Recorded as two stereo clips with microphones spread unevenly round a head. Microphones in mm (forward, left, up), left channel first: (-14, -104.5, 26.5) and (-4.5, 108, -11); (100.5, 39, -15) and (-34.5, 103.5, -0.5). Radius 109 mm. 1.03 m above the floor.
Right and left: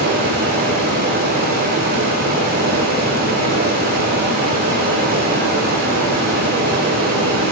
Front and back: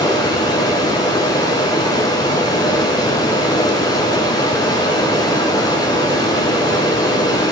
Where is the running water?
40° left, 6.5 m.